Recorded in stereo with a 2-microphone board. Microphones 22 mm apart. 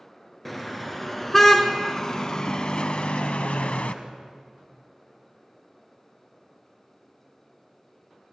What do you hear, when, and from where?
0.5 s a car horn: 5° left (ahead or behind), 2.5 m; by 4.0 s 75° left (ahead or behind), 1.1 m